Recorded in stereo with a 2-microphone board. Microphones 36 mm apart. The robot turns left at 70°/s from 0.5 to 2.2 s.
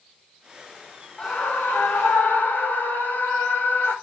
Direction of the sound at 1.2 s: 150° left.